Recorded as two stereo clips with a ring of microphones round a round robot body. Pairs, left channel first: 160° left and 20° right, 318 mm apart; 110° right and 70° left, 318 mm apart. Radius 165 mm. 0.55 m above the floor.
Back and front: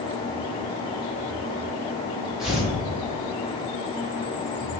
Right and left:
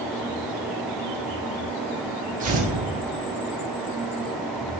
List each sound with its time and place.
2.4 s tearing paper: 65° left, 0.7 m